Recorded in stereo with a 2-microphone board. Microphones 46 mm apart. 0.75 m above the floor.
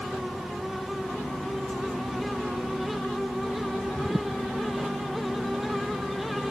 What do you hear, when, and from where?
Only background noise.